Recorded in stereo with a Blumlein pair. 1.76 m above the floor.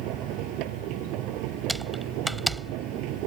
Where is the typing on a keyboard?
5° right.